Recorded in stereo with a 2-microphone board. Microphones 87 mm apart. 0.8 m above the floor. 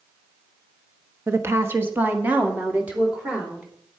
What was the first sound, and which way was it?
A woman speaking, 30° right (ahead or behind).